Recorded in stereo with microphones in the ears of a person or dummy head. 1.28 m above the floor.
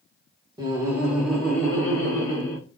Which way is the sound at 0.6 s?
15° right (ahead or behind).